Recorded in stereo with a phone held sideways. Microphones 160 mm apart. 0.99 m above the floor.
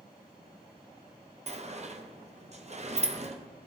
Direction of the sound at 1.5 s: 45° right (ahead or behind).